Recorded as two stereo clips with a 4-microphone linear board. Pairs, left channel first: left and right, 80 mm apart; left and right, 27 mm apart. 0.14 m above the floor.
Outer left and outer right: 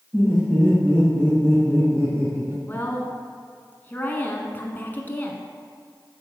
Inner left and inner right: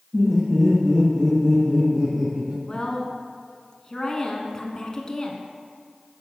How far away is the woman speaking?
About 1.1 m.